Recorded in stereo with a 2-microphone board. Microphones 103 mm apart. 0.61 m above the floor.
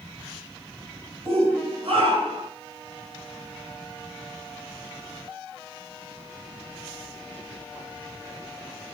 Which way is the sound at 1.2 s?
75° right (ahead or behind).